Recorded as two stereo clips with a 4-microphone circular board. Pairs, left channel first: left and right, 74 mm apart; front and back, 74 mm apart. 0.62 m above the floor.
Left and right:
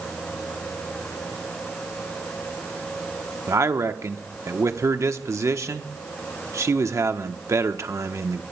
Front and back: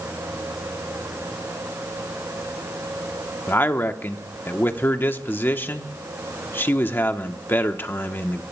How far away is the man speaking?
About 0.9 m.